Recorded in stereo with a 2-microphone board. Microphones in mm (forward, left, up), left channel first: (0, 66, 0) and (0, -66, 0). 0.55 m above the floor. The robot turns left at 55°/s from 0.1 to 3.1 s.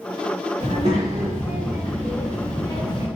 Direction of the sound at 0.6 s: 95° right.